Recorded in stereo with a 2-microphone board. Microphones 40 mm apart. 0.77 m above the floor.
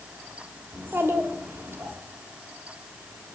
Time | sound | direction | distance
0.7 | a child speaking | 80° right | 1.8 m